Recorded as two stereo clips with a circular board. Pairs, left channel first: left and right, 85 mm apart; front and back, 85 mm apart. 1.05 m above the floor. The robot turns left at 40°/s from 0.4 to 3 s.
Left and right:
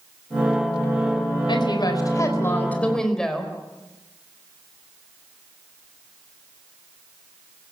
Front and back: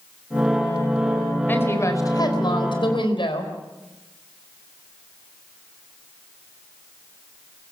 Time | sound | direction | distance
1.5 | a woman speaking | 65° left | 4 m